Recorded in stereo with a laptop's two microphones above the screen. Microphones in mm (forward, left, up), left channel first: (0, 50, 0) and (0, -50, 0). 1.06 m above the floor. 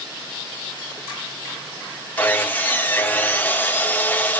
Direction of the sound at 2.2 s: 20° left (ahead or behind).